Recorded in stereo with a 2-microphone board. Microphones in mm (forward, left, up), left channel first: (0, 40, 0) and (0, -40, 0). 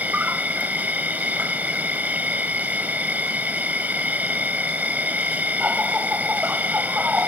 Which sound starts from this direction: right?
An insect, at 0.0 s.